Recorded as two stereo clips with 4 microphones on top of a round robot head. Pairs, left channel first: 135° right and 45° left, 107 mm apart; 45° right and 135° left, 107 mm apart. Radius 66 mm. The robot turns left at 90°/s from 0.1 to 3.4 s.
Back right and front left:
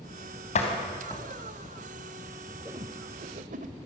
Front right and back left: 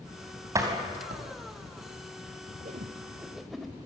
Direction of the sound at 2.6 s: 115° left.